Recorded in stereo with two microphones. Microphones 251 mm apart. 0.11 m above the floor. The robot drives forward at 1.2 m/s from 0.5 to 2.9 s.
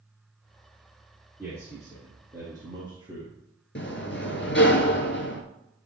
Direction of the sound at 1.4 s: 10° right (ahead or behind).